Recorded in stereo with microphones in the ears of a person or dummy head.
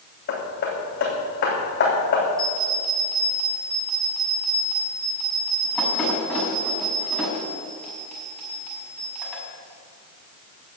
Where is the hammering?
65° left (ahead or behind), 3 m.